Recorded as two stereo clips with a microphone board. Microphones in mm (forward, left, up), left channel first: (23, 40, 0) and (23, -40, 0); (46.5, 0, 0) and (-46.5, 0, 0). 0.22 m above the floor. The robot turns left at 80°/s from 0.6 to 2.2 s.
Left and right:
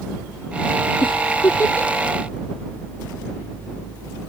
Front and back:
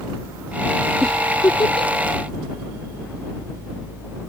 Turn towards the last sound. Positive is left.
turn(degrees=-10)